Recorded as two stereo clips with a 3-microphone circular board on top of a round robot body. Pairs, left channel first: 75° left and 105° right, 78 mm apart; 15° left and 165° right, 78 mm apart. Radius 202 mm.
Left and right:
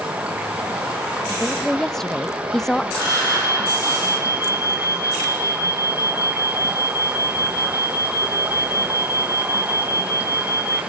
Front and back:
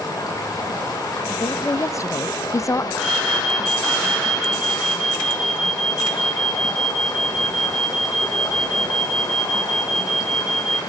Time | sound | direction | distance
0.0 | running water | 30° right | 3.5 m
1.3 | a woman speaking | 5° right | 0.7 m
3.0 | an alarm | 110° left | 2.5 m